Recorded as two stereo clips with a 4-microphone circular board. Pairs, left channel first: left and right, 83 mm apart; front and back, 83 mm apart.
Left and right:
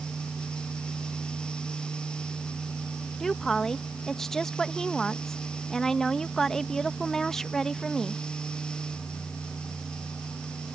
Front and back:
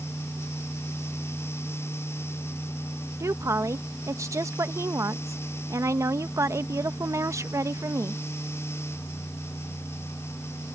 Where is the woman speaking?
170° left.